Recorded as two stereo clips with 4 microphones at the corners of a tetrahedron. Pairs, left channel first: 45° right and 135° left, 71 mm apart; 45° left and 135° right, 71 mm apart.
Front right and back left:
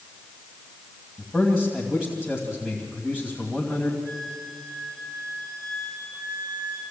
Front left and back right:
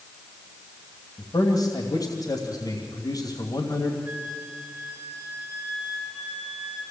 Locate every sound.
1.2 s a man speaking: 55° left, 2.5 m
4.0 s a flute: 165° left, 4.5 m